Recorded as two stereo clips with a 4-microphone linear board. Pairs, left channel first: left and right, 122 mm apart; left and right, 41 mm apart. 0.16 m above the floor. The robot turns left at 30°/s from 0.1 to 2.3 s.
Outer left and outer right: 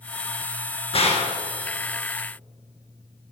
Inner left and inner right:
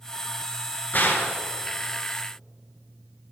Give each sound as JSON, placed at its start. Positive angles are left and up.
{"t": 0.9, "sound": "a gunshot", "side_deg": 50, "distance_m": 1.9}